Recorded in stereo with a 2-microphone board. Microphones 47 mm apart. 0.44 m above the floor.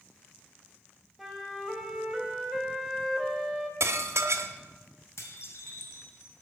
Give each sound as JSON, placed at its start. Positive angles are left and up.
{"t": 1.2, "sound": "a flute", "side_deg": 0, "distance_m": 1.4}
{"t": 3.8, "sound": "dishes clattering", "side_deg": -65, "distance_m": 1.0}
{"t": 5.2, "sound": "dishes clattering", "side_deg": 70, "distance_m": 1.8}